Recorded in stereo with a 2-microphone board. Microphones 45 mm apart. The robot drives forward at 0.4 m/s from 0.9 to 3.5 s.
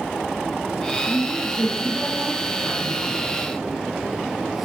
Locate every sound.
1.0 s a woman speaking: 15° left (ahead or behind), 4 m; by 3.2 s 10° left (ahead or behind), 4.5 m